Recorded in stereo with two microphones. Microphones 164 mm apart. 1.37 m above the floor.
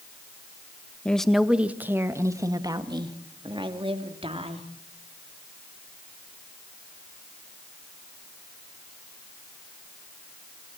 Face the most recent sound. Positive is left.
turn(degrees=-35)  # may be behind; listen again after turning